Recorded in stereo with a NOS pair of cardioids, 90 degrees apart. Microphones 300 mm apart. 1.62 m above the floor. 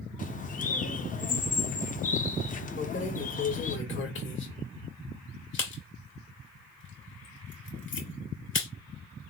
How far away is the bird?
About 0.7 m.